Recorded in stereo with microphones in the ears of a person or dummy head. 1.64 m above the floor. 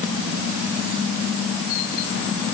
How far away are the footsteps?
No footsteps in this recording.